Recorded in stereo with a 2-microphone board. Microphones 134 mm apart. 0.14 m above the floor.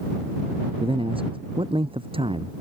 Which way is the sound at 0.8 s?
40° right (ahead or behind).